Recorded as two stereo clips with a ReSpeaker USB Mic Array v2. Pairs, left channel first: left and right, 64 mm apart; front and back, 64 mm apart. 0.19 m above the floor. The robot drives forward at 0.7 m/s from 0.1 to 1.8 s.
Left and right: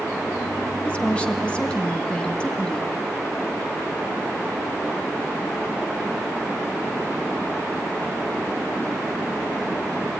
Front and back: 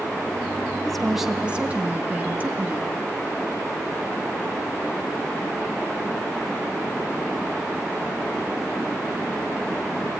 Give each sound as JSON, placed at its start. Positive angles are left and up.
{"t": 0.8, "sound": "a woman speaking", "azimuth_deg": 65, "distance_m": 1.0}